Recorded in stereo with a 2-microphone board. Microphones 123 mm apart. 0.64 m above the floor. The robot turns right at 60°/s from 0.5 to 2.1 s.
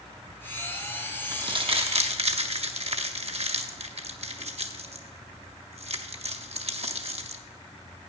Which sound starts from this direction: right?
Crumpling, at 1.3 s.